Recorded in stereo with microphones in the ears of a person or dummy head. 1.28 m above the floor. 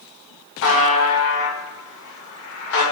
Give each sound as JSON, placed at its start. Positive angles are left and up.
{"t": 0.6, "sound": "a buzzer", "side_deg": 70, "distance_m": 0.8}